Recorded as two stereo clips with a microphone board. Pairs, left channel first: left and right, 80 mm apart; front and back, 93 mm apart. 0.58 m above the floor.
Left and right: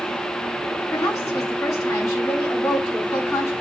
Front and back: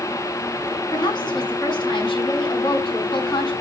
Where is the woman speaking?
35° left, 5.5 m.